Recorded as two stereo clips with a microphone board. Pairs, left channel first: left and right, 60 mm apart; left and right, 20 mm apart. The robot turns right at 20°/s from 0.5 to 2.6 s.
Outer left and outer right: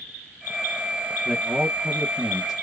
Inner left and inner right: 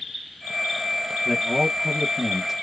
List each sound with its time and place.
1.2 s a man speaking: 25° right (ahead or behind), 1.2 m; by 2.5 s 10° right (ahead or behind), 1.2 m